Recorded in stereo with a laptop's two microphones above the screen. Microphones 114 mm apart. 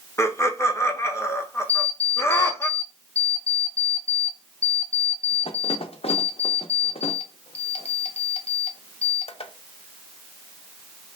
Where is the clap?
No clap in this recording.